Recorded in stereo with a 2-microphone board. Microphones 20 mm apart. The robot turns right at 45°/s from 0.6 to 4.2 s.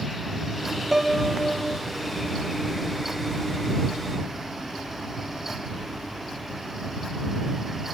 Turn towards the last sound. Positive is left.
turn(degrees=-10)